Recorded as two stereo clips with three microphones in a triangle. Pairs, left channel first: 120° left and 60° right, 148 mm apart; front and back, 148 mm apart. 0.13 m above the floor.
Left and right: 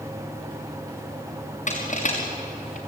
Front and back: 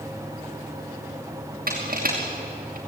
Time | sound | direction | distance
1.7 | crushing | 160° left | 5 m